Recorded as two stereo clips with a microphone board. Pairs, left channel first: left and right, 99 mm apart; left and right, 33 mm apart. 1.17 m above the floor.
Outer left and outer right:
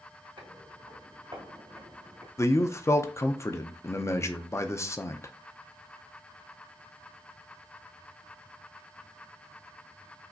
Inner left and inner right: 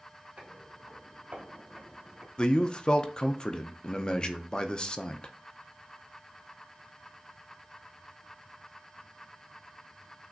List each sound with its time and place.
0.4 s footsteps: 60° right (ahead or behind), 2 m; by 2.3 s 40° right (ahead or behind), 1.5 m
2.4 s a man speaking: 30° left (ahead or behind), 0.5 m